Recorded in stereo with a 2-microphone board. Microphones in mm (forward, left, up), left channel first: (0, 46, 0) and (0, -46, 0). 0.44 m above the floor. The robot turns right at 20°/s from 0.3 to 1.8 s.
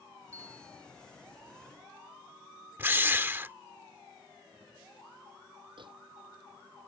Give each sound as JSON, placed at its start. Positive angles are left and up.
{"t": 0.3, "sound": "a bell", "side_deg": -35}
{"t": 2.8, "sound": "a drill", "side_deg": -25}
{"t": 5.8, "sound": "a microwave", "side_deg": -60}